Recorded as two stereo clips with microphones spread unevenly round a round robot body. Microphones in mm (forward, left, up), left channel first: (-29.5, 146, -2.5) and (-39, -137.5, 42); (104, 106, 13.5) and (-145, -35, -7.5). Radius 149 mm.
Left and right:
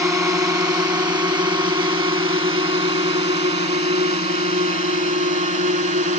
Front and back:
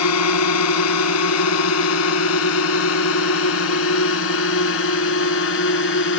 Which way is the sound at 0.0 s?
10° right.